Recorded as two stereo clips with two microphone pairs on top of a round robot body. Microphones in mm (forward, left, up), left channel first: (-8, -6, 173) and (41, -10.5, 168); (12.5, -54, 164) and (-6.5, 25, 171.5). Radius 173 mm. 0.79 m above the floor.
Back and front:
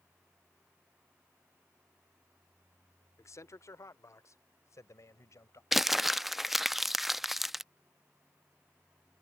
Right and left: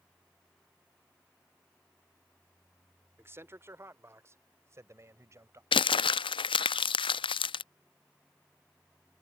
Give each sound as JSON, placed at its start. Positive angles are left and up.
{"t": 3.2, "sound": "a man speaking", "azimuth_deg": 165}
{"t": 5.7, "sound": "crumpling", "azimuth_deg": -90}